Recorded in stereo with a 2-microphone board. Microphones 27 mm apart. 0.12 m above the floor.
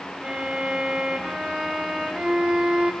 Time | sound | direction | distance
0.2 | a violin | 20° right (ahead or behind) | 7.5 m